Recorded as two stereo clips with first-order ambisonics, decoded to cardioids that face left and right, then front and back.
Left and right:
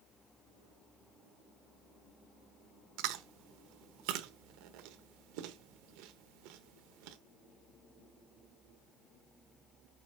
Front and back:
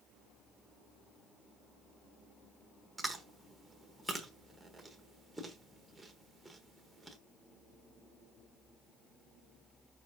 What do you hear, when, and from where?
3.0 s chewing: 95° right, 1.1 m